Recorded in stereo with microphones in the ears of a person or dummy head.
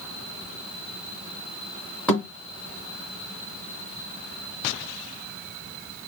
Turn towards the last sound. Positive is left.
turn(degrees=10)  # may be behind; listen again after turning